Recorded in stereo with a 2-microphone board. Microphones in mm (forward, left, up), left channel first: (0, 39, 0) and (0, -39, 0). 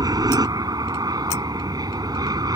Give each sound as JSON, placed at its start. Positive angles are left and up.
{"t": 0.0, "sound": "an aircraft", "side_deg": -60}